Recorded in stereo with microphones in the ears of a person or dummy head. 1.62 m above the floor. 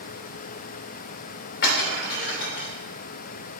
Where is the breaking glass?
50° left (ahead or behind), 2.5 m.